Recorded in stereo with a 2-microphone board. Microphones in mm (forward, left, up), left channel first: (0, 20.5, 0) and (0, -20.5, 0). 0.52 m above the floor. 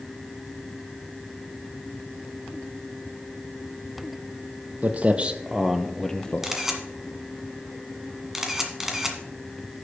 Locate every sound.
4.8 s footsteps: 40° right (ahead or behind), 1.0 m; by 6.5 s 25° left (ahead or behind), 0.8 m
6.4 s a camera shutter: 10° right (ahead or behind), 1.5 m